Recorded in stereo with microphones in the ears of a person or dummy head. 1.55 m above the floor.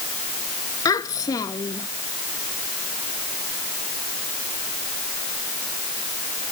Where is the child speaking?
15° left (ahead or behind).